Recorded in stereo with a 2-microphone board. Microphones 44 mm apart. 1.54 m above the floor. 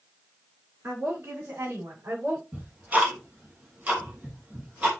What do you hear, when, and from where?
0.8 s a woman speaking: 70° right (ahead or behind), 6.5 m; by 2.4 s 75° right (ahead or behind), 5.5 m
2.5 s ticking: 40° right (ahead or behind), 3 m